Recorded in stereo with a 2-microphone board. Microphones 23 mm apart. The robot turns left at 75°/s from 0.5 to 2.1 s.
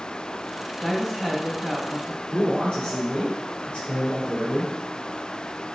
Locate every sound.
0.8 s a woman speaking: 10° left, 1.7 m; by 2.2 s 90° right, 1.7 m
2.3 s a man speaking: 50° left (ahead or behind), 3.5 m